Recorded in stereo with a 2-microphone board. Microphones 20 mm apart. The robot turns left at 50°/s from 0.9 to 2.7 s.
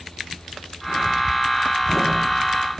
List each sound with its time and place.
Only background noise.